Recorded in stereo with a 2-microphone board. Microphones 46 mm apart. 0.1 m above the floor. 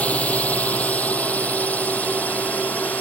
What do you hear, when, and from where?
0.0 s a drone: 30° left (ahead or behind); by 3.0 s 35° left (ahead or behind)